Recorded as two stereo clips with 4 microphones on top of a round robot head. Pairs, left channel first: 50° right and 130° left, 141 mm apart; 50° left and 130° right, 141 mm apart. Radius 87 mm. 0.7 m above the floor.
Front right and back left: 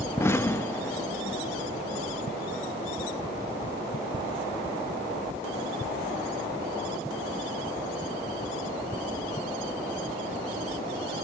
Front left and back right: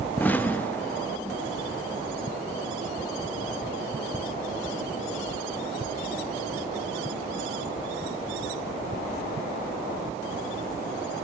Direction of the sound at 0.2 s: 10° right.